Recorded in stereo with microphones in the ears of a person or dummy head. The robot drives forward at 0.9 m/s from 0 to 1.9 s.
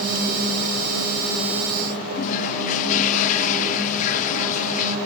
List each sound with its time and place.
2.1 s a toilet flushing: 45° left (ahead or behind), 0.9 m